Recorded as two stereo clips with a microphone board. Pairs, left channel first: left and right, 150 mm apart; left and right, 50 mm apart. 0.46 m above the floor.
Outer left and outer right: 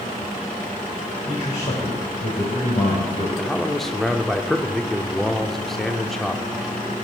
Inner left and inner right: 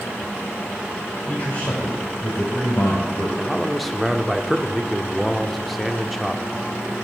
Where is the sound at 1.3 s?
50° left (ahead or behind), 2.5 m; by 3.3 s 70° left (ahead or behind), 2.5 m.